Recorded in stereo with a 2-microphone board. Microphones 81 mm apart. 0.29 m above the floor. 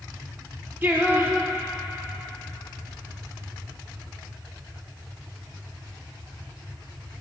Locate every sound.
0.8 s singing: 25° right (ahead or behind), 1.1 m